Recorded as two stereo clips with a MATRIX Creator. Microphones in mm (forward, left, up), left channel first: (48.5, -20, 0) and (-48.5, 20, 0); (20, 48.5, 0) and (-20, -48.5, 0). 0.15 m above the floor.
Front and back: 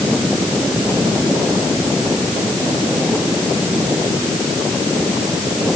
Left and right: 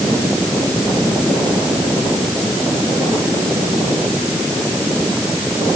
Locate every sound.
Only background noise.